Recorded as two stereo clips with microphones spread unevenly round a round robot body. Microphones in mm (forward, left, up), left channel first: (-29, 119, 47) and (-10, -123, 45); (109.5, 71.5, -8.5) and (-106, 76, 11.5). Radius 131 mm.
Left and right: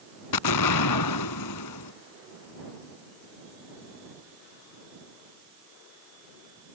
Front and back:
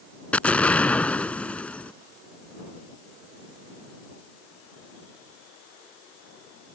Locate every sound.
0.3 s an explosion: 85° left